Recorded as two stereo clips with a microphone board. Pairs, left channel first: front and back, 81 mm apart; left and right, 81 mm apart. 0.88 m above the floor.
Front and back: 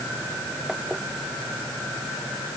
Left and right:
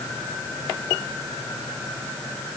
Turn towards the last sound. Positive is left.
No sound to turn to.